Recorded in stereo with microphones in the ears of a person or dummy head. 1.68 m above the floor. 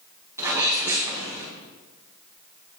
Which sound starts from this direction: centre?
A sneeze, at 0.4 s.